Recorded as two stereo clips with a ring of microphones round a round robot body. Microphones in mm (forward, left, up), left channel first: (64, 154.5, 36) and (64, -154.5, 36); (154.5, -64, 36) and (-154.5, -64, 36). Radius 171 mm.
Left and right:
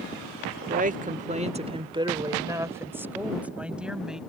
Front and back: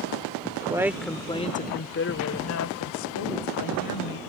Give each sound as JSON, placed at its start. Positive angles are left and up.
{"t": 0.6, "sound": "a woman speaking", "azimuth_deg": -120}